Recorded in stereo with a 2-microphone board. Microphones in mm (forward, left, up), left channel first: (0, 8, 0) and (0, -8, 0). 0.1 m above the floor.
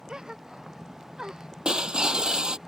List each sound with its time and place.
0.1 s a gasp: 50° right (ahead or behind)
1.6 s breaking glass: 70° right (ahead or behind)